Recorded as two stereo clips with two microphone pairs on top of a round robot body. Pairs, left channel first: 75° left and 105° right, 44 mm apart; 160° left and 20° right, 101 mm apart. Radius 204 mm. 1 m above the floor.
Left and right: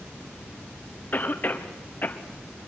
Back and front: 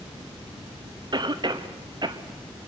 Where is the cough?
25° left, 1.8 m.